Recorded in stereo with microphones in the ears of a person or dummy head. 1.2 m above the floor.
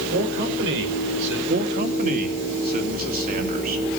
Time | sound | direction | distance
0.1 | a man speaking | 65° right (ahead or behind) | 5 m
1.5 | a man speaking | 45° right (ahead or behind) | 2.5 m